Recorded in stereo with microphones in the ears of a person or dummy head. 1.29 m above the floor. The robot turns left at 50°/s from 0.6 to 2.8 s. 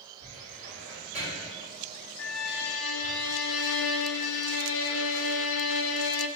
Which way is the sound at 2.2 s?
110° left.